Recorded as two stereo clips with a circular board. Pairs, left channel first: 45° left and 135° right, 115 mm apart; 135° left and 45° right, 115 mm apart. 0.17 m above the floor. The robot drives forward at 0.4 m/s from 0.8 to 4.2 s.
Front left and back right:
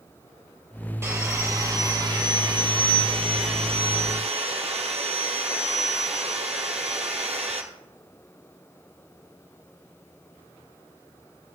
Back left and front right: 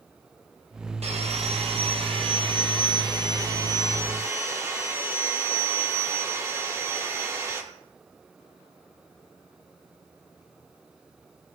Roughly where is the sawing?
Right.